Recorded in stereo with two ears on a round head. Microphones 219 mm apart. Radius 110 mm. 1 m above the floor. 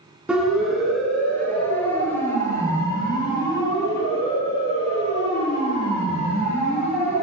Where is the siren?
5° right (ahead or behind), 7.5 m; by 7.2 s 35° left (ahead or behind), 14 m.